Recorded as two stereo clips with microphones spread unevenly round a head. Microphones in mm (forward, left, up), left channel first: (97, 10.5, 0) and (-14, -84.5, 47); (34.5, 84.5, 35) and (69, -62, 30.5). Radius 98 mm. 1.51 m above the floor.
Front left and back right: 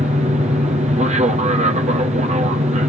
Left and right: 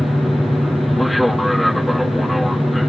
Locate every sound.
0.0 s an aircraft: 165° right